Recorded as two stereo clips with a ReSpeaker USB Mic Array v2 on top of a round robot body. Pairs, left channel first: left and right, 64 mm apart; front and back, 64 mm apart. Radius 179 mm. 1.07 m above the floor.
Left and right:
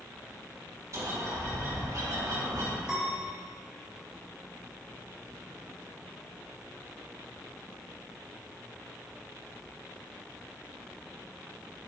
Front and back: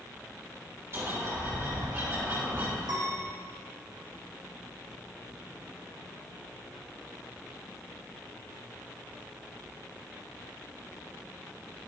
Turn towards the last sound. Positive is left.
turn(degrees=-170)